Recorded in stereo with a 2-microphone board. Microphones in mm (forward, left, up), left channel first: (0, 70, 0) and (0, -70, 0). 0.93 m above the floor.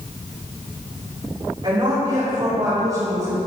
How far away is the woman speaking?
About 4 m.